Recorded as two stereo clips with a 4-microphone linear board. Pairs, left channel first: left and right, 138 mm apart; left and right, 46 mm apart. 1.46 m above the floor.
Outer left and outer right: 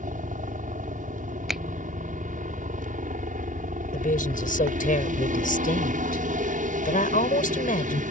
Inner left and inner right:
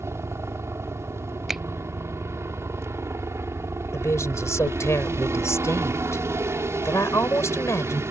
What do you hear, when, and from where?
0.0 s a helicopter: 70° right (ahead or behind)
1.5 s a finger snap: centre (ahead or behind)
3.9 s a woman speaking: 80° left